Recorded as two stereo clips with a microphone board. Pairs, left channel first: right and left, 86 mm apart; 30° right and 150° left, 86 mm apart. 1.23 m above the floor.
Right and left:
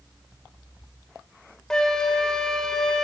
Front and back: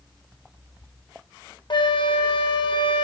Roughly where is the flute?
Ahead.